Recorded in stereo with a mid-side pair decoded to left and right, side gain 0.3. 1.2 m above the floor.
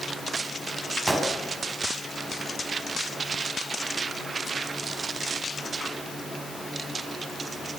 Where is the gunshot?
20° right, 10 m.